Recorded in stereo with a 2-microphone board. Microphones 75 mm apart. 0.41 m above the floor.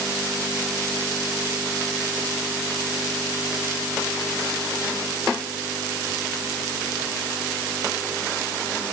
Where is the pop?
No pop in this recording.